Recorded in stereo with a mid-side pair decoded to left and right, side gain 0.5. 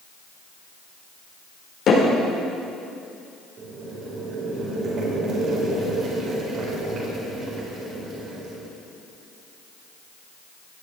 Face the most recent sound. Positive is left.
turn(degrees=-60)